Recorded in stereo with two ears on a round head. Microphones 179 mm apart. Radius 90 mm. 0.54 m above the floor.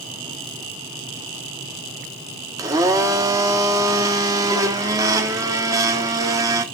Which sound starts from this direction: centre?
A blender, at 2.6 s.